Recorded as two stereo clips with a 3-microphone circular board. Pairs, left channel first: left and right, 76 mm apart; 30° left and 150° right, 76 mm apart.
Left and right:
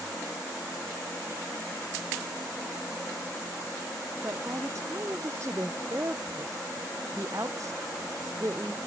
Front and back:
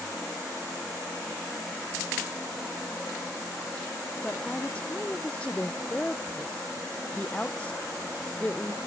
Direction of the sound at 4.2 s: 45° right.